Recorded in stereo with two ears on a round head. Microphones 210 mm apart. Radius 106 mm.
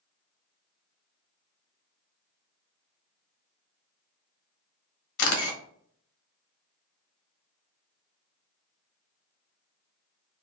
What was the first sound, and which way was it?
A camera shutter, 65° left (ahead or behind).